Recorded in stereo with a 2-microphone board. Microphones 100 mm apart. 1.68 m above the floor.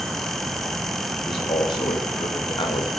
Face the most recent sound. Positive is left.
turn(degrees=50)  # may be behind; listen again after turning